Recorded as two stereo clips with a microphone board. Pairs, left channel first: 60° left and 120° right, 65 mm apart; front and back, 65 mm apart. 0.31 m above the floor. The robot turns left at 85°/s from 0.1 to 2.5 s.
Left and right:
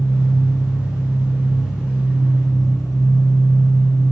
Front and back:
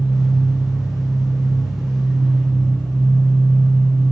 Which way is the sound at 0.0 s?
80° right.